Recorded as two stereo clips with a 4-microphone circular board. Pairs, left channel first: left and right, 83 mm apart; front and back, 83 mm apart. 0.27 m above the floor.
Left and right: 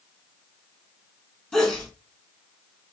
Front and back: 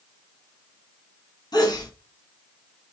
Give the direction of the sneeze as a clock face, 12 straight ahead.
12 o'clock.